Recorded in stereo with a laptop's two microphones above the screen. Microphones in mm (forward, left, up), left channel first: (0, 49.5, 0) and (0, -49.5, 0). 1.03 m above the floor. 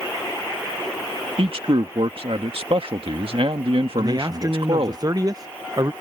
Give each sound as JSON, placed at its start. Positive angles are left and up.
{"t": 1.4, "sound": "a man speaking", "side_deg": -65}
{"t": 4.0, "sound": "a man speaking", "side_deg": -40}